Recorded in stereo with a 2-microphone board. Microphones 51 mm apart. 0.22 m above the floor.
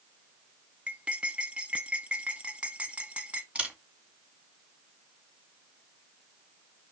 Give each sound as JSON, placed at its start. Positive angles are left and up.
{"t": 0.9, "sound": "cutlery clinking", "side_deg": -25, "distance_m": 1.2}
{"t": 3.5, "sound": "a camera shutter", "side_deg": -25, "distance_m": 2.0}